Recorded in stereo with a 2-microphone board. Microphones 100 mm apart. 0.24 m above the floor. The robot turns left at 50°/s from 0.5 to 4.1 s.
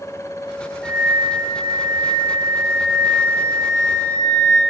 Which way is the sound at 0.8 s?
Straight behind.